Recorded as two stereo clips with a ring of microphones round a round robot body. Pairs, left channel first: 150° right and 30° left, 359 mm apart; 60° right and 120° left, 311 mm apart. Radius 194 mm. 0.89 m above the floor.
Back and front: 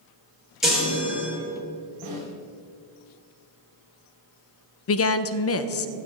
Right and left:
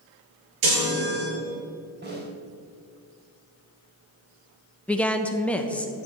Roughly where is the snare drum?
Ahead left.